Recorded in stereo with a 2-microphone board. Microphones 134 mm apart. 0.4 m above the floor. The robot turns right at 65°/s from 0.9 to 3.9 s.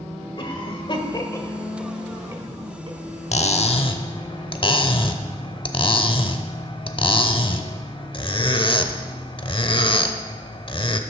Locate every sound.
0.4 s a cough: 40° left (ahead or behind), 1.5 m; by 3.0 s 45° right (ahead or behind), 1.5 m
3.3 s cutlery clinking: 90° left, 0.7 m; by 11.0 s 130° left, 0.7 m